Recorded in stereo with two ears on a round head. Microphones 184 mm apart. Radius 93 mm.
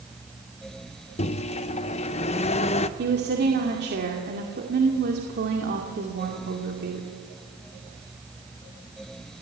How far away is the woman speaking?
About 2.5 m.